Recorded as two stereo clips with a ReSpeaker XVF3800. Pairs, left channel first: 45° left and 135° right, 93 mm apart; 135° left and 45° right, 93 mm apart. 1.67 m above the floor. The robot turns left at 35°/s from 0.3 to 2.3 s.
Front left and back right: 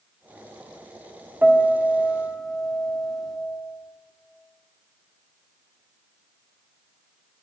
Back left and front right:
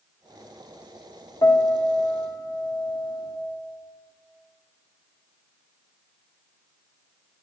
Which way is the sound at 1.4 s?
160° left.